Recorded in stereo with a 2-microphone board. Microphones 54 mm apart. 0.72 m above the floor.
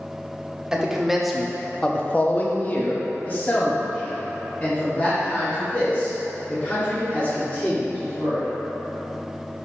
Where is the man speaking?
10° right (ahead or behind), 1.1 m; by 8.4 s 30° left (ahead or behind), 4.5 m.